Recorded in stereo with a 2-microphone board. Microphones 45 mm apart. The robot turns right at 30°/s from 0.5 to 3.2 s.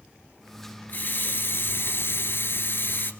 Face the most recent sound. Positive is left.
turn(degrees=125)